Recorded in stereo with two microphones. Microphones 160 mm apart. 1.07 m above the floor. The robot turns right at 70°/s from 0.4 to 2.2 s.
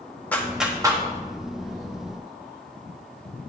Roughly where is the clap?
Centre.